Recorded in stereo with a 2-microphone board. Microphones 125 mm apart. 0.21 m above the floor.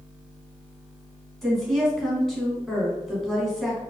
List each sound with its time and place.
1.4 s a woman speaking: 5° left (ahead or behind), 1.5 m